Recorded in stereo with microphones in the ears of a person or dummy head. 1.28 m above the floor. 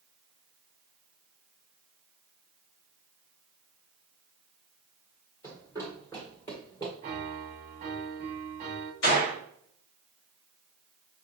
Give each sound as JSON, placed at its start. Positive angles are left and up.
{"t": 5.4, "sound": "running footsteps", "side_deg": 20, "distance_m": 1.6}
{"t": 7.0, "sound": "a piano", "side_deg": -30, "distance_m": 0.9}
{"t": 9.0, "sound": "a gunshot", "side_deg": 75, "distance_m": 2.5}